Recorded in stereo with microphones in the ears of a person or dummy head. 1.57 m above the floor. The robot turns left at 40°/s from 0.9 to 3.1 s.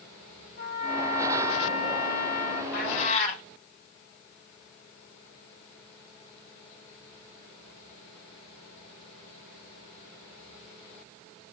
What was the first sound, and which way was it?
A trumpet, 120° left.